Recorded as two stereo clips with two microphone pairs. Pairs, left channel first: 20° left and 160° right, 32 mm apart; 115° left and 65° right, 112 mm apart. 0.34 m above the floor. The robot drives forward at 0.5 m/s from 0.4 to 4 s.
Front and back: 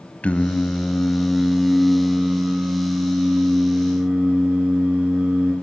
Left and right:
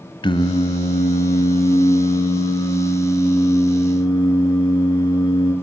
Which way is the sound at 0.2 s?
70° left.